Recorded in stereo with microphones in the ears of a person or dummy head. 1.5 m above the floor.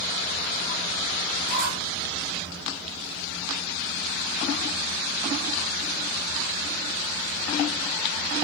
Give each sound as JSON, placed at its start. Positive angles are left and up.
{"t": 1.5, "sound": "a squeak", "side_deg": -60, "distance_m": 5.0}